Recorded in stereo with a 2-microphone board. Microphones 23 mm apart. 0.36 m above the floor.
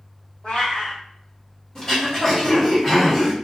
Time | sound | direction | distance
0.4 | a cat meowing | 65° left (ahead or behind) | 1.6 m
1.8 | throat clearing | 25° left (ahead or behind) | 1.3 m